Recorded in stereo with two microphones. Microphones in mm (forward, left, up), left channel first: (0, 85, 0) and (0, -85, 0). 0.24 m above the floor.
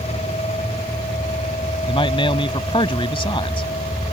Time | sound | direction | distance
1.9 | a man speaking | 30° left (ahead or behind) | ?